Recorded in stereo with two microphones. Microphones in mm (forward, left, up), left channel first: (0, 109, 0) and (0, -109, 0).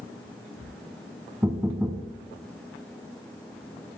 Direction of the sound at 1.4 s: 10° right (ahead or behind).